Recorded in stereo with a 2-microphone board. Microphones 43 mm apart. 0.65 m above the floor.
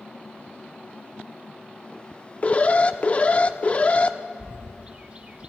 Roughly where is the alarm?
Left.